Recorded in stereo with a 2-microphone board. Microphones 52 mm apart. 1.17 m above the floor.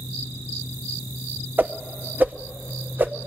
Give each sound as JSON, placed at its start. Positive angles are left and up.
{"t": 1.6, "sound": "a whoosh", "side_deg": -40, "distance_m": 0.7}